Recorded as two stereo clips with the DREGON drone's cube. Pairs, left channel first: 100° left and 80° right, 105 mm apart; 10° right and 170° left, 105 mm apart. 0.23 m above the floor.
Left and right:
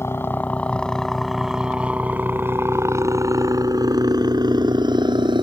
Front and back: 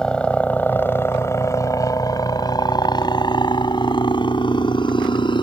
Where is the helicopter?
65° left; by 5.4 s 45° right.